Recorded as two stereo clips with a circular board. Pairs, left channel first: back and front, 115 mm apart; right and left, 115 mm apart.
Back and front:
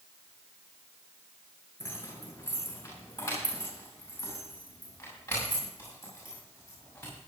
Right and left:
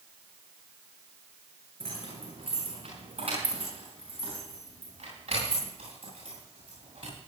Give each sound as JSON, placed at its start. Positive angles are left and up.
{"t": 1.8, "sound": "keys jangling", "azimuth_deg": 115, "distance_m": 8.0}